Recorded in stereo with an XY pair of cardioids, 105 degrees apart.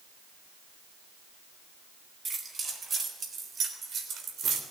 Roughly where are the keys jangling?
Ahead right.